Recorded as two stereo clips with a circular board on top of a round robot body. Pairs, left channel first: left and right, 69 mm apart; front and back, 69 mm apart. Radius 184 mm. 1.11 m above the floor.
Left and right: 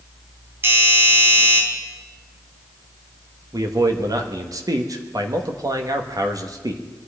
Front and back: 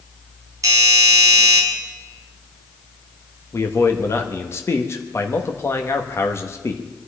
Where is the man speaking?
50° right, 1.6 m.